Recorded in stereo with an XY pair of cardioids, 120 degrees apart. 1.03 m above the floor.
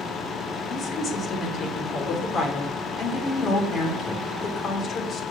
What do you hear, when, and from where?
0.7 s a woman speaking: 45° left, 3 m